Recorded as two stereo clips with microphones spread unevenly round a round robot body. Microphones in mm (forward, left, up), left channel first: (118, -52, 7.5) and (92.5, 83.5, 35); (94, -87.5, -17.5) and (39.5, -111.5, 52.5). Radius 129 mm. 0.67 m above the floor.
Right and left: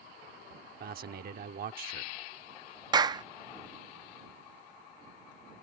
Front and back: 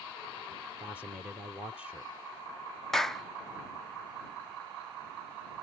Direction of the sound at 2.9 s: 35° left.